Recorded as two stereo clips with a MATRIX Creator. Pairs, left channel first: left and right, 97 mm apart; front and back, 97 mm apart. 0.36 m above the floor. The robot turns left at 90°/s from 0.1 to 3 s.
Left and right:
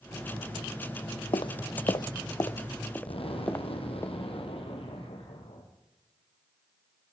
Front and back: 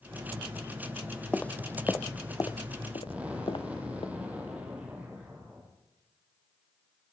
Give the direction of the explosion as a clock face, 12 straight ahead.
9 o'clock.